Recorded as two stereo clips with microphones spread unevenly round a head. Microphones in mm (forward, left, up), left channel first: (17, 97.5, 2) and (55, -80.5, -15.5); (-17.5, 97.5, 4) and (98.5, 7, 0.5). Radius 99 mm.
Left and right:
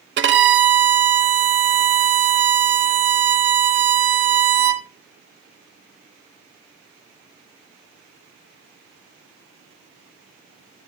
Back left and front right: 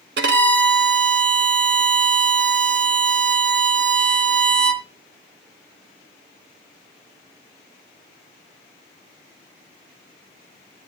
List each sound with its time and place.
0.2 s a violin: 55° right, 1.0 m